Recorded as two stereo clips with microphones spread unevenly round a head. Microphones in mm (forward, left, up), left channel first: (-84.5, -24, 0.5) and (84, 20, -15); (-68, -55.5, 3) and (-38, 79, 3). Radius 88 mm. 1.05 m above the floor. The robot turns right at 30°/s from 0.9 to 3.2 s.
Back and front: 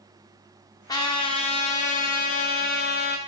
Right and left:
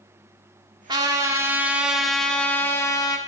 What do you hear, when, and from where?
0.9 s a trumpet: 130° left, 0.9 m; by 3.2 s 160° right, 0.9 m